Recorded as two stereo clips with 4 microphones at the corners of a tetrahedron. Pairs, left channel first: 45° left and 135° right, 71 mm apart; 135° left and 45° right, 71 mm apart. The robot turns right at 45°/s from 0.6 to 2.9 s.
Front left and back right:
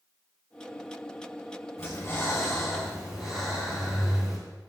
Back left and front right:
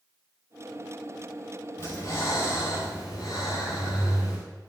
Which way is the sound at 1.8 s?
85° left.